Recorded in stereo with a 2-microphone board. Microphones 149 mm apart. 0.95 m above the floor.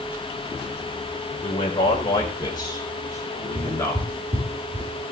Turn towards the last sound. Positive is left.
turn(degrees=-45)  # may be behind; listen again after turning